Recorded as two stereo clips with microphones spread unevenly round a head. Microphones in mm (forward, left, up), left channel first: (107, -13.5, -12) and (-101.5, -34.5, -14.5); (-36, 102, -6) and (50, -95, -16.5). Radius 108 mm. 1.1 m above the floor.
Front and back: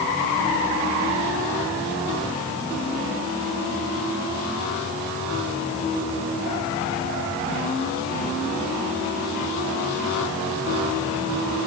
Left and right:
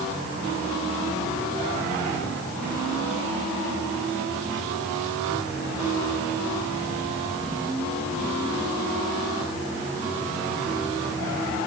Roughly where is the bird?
No bird in this recording.